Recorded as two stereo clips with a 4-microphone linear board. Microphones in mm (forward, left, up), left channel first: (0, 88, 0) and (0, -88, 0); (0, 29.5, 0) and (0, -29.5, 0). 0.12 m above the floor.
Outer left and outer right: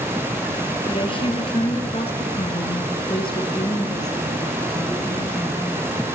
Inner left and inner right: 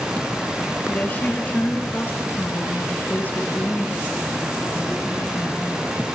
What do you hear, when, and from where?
0.9 s a woman speaking: 30° left (ahead or behind), 2 m; by 6.2 s 10° left (ahead or behind), 3.5 m